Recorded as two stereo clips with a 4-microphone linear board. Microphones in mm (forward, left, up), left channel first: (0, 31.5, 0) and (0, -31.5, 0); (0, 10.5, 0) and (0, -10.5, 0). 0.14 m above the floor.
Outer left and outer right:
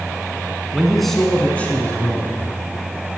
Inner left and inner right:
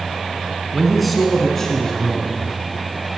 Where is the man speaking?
10° right (ahead or behind), 1.3 m; by 2.5 s 35° left (ahead or behind), 1.8 m.